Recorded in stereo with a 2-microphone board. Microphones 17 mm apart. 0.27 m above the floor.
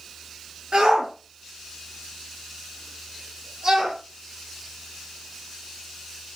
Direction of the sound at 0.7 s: 60° right (ahead or behind).